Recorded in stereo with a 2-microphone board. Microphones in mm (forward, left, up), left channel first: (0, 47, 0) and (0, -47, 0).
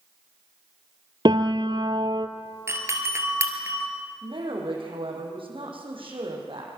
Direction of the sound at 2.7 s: 30° right (ahead or behind).